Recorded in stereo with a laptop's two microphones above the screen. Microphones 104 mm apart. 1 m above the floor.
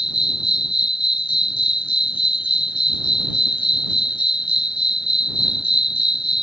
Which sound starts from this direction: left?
An insect, at 0.0 s.